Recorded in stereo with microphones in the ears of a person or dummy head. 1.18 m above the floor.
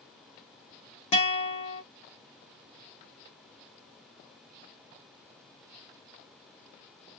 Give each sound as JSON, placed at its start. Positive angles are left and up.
{"t": 1.1, "sound": "a guitar", "side_deg": 35, "distance_m": 0.9}